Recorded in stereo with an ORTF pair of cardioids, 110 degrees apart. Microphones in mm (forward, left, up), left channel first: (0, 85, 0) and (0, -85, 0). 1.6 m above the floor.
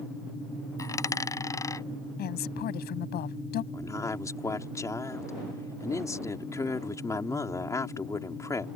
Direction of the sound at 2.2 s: 65° left.